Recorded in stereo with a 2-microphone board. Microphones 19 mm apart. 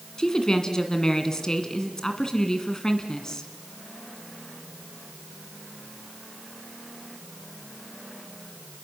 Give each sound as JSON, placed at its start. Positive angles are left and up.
{"t": 0.2, "sound": "a woman speaking", "side_deg": 35, "distance_m": 2.0}